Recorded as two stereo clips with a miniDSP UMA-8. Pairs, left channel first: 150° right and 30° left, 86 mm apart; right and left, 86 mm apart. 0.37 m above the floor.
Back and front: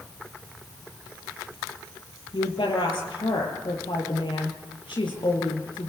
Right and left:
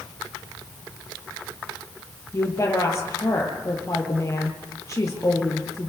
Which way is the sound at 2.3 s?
145° right.